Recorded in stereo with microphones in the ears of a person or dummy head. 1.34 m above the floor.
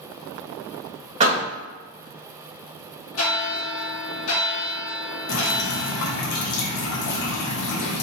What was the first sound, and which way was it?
A door slam, 45° right (ahead or behind).